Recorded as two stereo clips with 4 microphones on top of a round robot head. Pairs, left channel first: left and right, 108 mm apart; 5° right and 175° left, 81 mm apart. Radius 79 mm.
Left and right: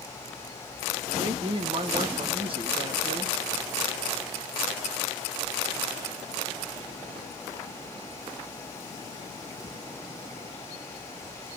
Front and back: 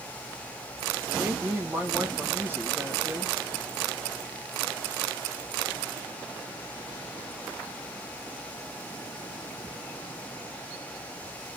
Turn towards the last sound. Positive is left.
turn(degrees=-120)